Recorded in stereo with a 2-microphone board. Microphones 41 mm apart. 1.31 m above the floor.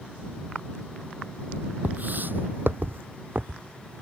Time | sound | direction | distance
1.8 | footsteps | 45° right (ahead or behind) | ?